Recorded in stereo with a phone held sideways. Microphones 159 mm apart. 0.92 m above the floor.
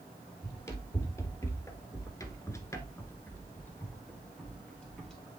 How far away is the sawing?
I don't hear sawing.